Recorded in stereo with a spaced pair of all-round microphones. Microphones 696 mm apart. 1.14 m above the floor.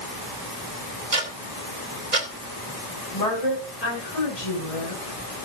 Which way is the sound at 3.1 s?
70° left (ahead or behind).